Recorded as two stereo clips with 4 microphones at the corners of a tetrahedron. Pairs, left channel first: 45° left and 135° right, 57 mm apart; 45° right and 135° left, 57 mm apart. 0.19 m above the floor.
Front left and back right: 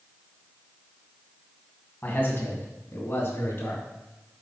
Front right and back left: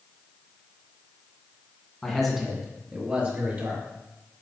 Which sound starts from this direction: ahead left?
A man speaking, at 2.0 s.